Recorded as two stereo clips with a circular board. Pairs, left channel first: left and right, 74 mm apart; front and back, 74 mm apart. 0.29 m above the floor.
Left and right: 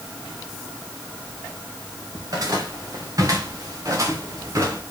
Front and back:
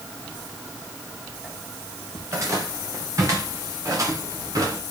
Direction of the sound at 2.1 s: 130° right.